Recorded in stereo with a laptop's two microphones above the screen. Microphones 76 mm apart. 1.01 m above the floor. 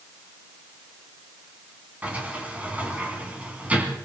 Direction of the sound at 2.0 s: 20° right (ahead or behind).